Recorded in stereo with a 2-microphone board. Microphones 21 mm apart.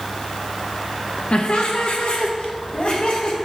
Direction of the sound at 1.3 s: 60° left (ahead or behind).